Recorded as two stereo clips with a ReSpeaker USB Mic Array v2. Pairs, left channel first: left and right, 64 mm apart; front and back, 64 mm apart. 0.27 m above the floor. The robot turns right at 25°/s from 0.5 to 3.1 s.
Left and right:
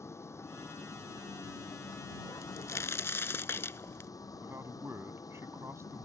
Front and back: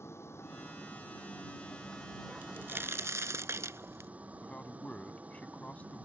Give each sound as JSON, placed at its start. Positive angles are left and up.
{"t": 0.0, "sound": "a vehicle", "azimuth_deg": 45}
{"t": 2.4, "sound": "a crack", "azimuth_deg": 120}
{"t": 4.4, "sound": "a man speaking", "azimuth_deg": -65}